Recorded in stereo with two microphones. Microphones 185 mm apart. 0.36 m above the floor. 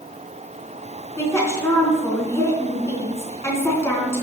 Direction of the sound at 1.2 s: 15° left (ahead or behind).